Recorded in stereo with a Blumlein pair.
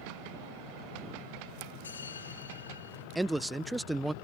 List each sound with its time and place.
1.8 s a bell: 70° left
3.1 s a man speaking: 5° right